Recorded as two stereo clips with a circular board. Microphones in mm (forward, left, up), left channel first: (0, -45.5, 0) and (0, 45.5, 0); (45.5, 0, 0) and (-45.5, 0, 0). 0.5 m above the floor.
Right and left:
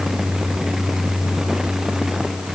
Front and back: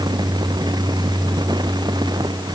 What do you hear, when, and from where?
Only background noise.